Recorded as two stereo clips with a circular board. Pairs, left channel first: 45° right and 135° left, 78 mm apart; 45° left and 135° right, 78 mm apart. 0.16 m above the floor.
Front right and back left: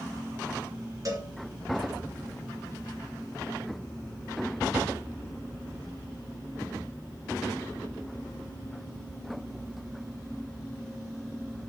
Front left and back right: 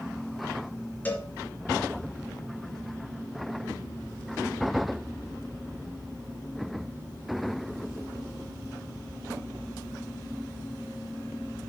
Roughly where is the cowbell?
Left.